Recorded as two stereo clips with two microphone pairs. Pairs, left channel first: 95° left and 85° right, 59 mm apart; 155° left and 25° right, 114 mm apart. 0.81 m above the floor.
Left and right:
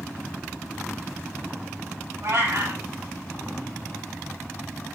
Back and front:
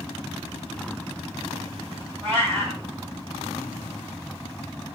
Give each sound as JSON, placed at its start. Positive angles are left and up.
{"t": 2.2, "sound": "a cat meowing", "azimuth_deg": -90, "distance_m": 3.0}